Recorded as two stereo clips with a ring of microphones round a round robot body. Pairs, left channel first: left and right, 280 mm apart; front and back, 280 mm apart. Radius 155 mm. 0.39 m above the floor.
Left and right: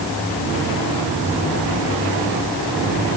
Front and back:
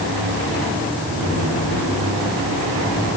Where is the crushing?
No crushing in this recording.